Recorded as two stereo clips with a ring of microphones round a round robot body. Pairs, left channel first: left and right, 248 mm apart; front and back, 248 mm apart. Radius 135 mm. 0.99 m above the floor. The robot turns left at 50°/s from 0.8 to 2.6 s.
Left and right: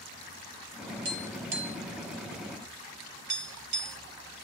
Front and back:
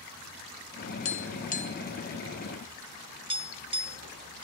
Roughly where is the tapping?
Ahead right.